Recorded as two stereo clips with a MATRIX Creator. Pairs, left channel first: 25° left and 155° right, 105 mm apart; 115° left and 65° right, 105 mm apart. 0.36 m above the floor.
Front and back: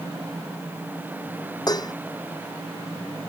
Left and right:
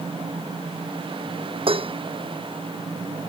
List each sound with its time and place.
1.7 s dishes clattering: 30° right